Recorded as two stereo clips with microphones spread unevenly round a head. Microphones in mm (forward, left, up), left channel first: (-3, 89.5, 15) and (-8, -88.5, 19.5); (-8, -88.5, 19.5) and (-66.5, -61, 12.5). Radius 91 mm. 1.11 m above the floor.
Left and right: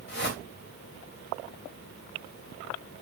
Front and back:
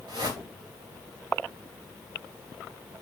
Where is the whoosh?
115° left, 3 m.